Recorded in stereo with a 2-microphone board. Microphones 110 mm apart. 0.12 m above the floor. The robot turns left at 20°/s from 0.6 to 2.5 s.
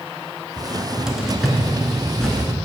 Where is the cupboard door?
10° right (ahead or behind), 0.9 m; by 2.5 s 10° left (ahead or behind), 0.9 m.